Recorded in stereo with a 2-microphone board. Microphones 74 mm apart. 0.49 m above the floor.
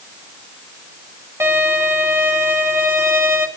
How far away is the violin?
About 3 m.